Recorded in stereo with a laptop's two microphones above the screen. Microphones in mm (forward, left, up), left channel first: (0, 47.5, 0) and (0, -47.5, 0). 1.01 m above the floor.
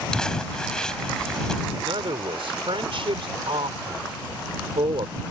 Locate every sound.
0.1 s crumpling: 10° left (ahead or behind)
1.8 s a man speaking: 80° right